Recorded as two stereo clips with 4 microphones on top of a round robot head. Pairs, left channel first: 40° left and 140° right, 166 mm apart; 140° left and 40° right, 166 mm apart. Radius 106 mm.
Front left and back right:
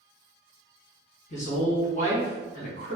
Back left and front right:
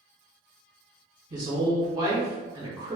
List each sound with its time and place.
1.3 s a woman speaking: 20° left, 1.4 m